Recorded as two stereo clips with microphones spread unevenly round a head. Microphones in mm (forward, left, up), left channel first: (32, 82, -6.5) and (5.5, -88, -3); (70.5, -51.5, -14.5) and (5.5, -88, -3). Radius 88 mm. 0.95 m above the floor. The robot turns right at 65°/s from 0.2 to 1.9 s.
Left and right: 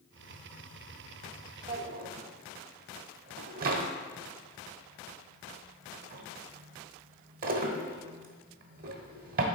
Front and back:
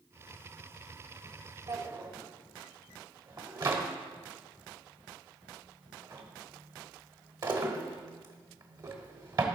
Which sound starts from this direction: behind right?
A drawer, at 1.7 s.